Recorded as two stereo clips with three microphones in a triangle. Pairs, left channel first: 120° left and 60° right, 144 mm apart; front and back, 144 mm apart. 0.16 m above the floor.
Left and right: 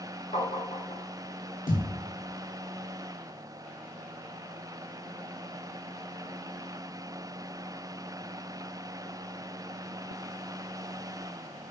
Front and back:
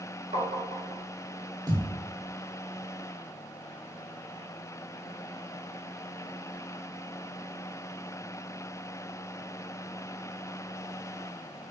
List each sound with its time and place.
0.3 s tapping: 155° left, 0.8 m
1.7 s a thud: 120° left, 1.0 m